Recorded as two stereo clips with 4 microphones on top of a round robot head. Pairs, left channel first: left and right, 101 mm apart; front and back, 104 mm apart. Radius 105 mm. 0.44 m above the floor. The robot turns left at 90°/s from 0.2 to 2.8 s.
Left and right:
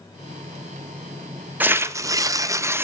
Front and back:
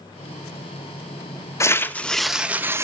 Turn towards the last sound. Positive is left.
turn(degrees=-140)